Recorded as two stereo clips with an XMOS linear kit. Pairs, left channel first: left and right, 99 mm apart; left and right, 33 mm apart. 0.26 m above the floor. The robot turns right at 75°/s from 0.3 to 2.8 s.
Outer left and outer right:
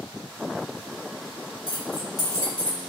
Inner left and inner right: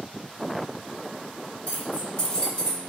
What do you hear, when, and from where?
1.7 s keys jangling: 65° left (ahead or behind), 1.9 m; by 2.8 s 5° left (ahead or behind), 1.9 m